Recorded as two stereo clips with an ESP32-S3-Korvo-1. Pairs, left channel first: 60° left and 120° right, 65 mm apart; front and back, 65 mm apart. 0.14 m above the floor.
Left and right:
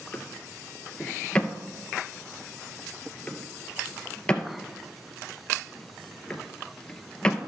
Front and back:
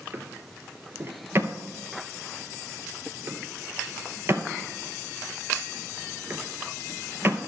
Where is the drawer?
135° left, 0.9 m.